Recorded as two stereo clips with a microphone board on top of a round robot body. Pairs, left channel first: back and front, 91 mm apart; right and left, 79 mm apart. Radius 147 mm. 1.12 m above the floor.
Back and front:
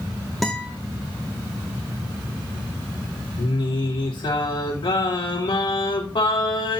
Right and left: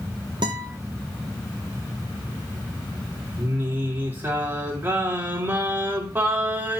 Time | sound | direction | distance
0.4 | a guitar | 90° left | 1.0 m
3.4 | singing | 155° left | 4.5 m